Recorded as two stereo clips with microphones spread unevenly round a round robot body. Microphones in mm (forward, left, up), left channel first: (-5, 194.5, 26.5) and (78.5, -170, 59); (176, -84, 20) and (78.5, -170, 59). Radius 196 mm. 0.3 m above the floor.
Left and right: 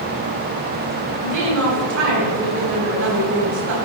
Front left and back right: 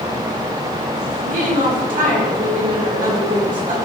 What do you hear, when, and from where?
1.2 s a woman speaking: 135° right, 3 m